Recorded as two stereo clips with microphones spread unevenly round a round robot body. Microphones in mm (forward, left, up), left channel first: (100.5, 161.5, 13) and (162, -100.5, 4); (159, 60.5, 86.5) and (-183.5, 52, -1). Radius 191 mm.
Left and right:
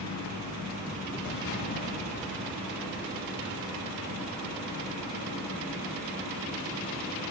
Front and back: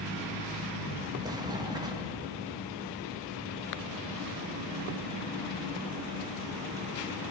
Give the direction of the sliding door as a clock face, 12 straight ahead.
8 o'clock.